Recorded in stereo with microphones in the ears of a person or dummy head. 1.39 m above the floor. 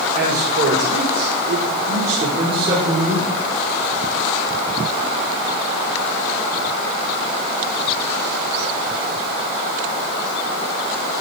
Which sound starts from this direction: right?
A man speaking, at 0.1 s.